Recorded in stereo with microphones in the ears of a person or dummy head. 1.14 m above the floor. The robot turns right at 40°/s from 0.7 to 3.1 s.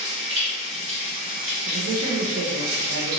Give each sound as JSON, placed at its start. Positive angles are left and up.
{"t": 0.0, "sound": "running water", "azimuth_deg": -150, "distance_m": 0.9}
{"t": 1.7, "sound": "a man speaking", "azimuth_deg": -135, "distance_m": 0.6}